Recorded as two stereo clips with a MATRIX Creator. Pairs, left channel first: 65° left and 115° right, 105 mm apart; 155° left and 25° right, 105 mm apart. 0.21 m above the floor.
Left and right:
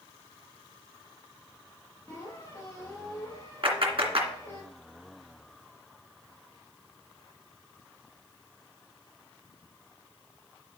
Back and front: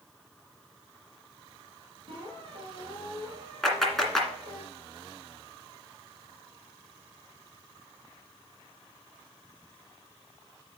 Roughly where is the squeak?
Ahead.